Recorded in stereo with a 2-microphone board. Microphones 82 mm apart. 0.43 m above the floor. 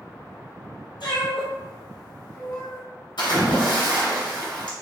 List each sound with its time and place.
1.0 s a cat meowing: 75° left (ahead or behind), 1.3 m; by 2.8 s 45° left (ahead or behind), 1.7 m
3.2 s a splash: 80° left, 1.4 m